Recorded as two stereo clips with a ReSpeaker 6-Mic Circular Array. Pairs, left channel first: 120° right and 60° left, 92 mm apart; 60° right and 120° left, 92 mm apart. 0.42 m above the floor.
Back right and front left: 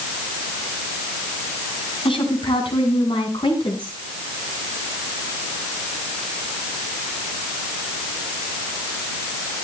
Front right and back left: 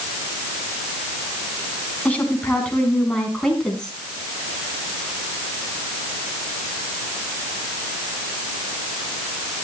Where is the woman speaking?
135° right, 4 m; by 3.9 s 145° right, 4.5 m.